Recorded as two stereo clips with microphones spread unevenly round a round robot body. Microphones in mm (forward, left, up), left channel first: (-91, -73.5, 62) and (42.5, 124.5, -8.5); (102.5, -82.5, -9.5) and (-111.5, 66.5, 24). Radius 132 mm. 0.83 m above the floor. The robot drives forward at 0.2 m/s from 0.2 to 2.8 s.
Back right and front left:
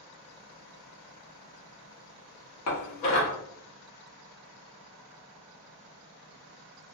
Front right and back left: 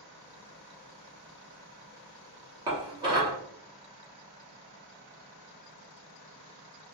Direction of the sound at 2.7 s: 140° right.